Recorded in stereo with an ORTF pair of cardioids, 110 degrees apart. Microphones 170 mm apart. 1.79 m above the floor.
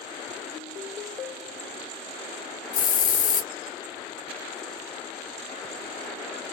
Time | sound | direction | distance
2.7 | a hiss | 65° left | 0.7 m